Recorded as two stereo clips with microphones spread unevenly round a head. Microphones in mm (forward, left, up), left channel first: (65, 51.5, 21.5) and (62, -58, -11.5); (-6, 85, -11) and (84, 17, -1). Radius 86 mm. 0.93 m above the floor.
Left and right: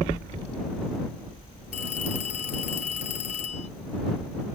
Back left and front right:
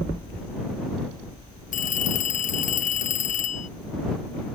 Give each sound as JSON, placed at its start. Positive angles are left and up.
{"t": 1.7, "sound": "a phone ringing", "azimuth_deg": 140}